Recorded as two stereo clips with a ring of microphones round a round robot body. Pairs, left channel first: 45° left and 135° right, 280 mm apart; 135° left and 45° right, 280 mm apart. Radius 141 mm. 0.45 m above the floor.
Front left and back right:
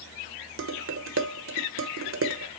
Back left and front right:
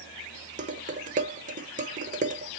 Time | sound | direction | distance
0.6 | dishes clattering | 105° right | 1.0 m